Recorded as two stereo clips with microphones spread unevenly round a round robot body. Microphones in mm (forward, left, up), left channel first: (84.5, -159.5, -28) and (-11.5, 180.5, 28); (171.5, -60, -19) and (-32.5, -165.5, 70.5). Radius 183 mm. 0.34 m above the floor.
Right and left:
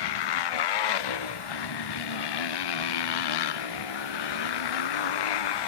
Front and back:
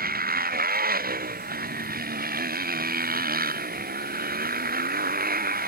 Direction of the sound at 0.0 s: 105° right.